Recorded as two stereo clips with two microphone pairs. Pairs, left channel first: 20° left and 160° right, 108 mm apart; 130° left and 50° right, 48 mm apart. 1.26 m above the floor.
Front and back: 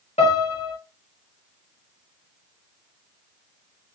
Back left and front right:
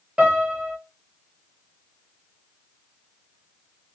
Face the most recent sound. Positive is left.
turn(degrees=15)